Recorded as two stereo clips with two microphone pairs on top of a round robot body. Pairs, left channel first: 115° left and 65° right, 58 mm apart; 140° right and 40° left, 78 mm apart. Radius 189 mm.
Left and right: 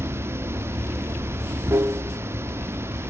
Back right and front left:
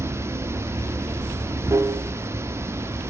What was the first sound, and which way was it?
Running water, 15° right.